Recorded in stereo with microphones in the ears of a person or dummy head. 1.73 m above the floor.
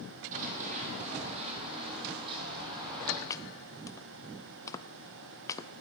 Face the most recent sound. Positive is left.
turn(degrees=15)  # may be behind; listen again after turning